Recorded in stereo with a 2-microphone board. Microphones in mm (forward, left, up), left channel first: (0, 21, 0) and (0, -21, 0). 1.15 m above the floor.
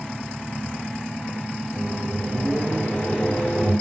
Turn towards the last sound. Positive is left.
turn(degrees=50)  # may be behind; listen again after turning